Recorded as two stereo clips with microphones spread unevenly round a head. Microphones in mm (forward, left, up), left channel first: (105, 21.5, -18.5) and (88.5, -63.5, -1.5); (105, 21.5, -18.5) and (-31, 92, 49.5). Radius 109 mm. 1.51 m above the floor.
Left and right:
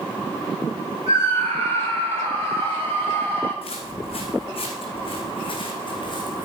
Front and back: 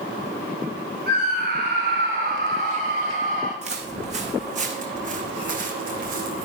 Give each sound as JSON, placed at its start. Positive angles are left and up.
{"t": 1.1, "sound": "a scream", "azimuth_deg": -160, "distance_m": 5.0}
{"t": 3.6, "sound": "footsteps", "azimuth_deg": 120, "distance_m": 6.5}